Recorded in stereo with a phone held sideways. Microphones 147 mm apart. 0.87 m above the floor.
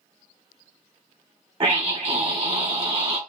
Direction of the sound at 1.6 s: 40° right (ahead or behind).